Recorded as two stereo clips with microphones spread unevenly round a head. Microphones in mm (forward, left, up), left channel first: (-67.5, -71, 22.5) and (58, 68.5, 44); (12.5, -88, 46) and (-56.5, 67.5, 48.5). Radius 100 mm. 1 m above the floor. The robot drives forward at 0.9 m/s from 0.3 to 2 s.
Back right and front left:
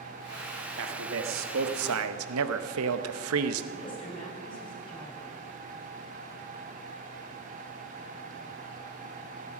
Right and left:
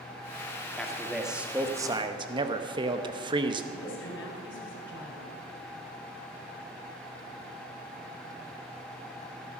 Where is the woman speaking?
65° right, 4.5 m.